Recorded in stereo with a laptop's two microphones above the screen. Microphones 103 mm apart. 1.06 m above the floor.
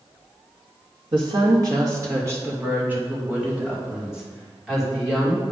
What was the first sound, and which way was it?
A woman speaking, 50° right (ahead or behind).